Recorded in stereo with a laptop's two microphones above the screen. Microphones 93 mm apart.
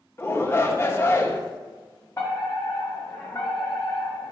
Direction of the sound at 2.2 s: 30° left (ahead or behind).